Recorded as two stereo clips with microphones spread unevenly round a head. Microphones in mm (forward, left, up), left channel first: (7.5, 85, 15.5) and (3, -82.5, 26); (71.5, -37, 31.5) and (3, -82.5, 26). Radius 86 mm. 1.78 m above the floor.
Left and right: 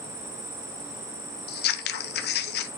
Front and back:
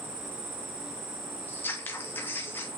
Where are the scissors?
105° left, 0.8 m.